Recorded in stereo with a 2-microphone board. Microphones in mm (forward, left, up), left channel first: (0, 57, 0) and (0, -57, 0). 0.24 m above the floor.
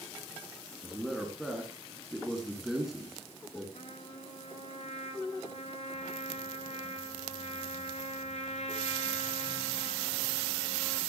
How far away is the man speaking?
About 3 m.